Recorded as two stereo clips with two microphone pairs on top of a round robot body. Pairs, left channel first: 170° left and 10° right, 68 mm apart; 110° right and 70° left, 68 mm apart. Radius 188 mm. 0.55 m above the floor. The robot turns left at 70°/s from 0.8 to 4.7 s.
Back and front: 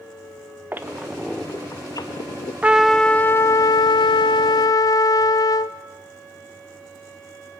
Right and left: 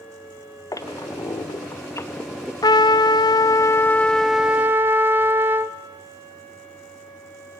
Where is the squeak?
75° right, 1.1 m; by 2.5 s 165° left, 1.1 m.